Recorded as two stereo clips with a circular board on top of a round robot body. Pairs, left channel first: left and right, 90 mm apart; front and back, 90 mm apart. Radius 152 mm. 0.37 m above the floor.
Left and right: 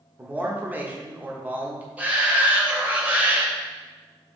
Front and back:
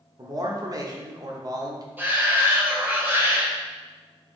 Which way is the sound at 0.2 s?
155° right.